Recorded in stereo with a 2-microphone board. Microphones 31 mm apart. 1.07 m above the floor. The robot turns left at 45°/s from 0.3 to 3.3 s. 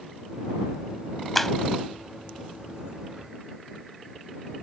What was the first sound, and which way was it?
A clap, 5° left (ahead or behind).